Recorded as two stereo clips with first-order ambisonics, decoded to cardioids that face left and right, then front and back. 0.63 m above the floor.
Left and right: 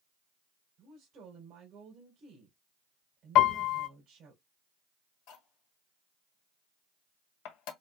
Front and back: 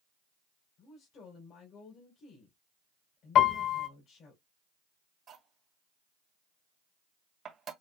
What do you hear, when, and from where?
0.8 s a woman speaking: 45° right, 3 m
3.4 s a piano: 50° left, 0.7 m
5.3 s cutlery clinking: 115° left, 1.6 m